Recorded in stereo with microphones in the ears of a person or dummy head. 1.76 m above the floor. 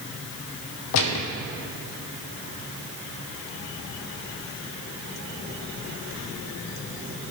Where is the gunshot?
70° left (ahead or behind), 0.7 m.